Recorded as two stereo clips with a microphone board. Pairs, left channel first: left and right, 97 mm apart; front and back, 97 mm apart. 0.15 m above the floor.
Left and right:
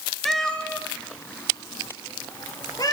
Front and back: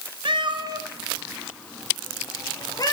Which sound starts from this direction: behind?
A cat meowing, at 0.2 s.